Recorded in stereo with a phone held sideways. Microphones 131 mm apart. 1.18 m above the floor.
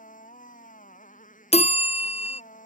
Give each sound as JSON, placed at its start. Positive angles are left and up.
{"t": 0.0, "sound": "a motorcycle", "side_deg": 80}
{"t": 1.5, "sound": "a bell", "side_deg": 50}